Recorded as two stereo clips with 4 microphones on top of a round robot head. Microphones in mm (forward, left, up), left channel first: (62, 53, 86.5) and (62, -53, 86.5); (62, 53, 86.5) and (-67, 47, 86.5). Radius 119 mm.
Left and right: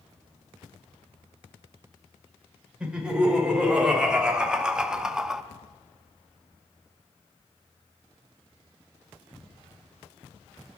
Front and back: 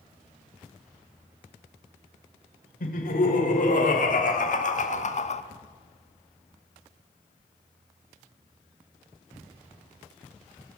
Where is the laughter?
10° right, 5 m; by 5.4 s 5° right, 1.3 m.